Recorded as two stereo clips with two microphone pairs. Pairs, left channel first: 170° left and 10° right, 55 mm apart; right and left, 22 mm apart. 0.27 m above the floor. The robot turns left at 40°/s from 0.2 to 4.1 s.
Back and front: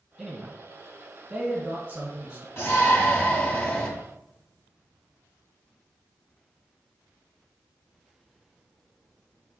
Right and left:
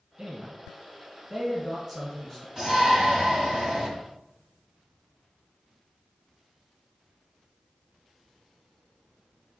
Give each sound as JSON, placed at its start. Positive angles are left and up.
{"t": 0.2, "sound": "a man speaking", "azimuth_deg": 60, "distance_m": 1.2}
{"t": 2.6, "sound": "a shout", "azimuth_deg": 150, "distance_m": 1.3}